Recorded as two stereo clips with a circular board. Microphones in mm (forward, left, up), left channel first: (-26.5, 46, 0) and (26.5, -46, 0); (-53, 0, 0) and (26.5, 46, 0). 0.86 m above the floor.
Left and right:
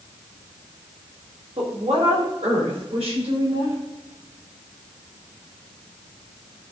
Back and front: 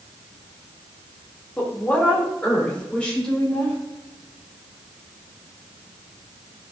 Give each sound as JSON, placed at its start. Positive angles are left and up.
{"t": 1.6, "sound": "a woman speaking", "azimuth_deg": -75, "distance_m": 2.5}